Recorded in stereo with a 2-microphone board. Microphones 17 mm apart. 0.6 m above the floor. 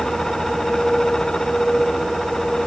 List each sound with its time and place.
Only background noise.